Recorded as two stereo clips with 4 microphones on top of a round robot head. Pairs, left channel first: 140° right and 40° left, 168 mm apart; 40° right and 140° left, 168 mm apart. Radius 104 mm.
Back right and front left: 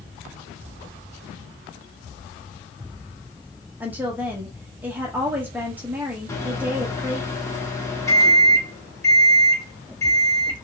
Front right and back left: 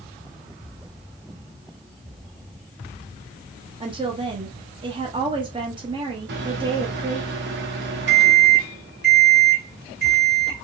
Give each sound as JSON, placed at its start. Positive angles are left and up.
{"t": 3.8, "sound": "a woman speaking", "azimuth_deg": 110, "distance_m": 0.8}
{"t": 6.3, "sound": "a microwave", "azimuth_deg": 145, "distance_m": 1.1}